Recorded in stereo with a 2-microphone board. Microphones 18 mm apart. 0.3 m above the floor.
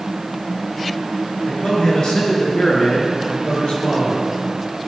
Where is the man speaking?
70° left (ahead or behind), 4.5 m; by 4.3 s 75° left (ahead or behind), 6 m.